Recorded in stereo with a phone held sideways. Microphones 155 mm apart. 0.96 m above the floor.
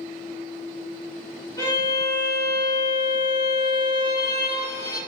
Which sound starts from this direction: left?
A violin, at 1.6 s.